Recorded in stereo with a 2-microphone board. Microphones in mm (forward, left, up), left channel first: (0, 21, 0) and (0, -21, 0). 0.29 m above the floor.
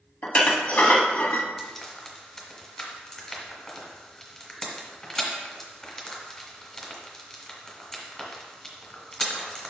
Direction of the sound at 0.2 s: 40° left (ahead or behind).